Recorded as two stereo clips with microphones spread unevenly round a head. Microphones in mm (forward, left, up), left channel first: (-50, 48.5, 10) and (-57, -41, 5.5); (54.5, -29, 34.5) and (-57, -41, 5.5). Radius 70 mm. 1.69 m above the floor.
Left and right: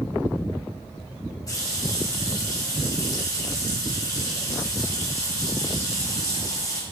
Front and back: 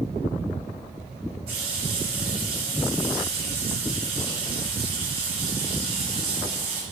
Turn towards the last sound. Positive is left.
turn(degrees=135)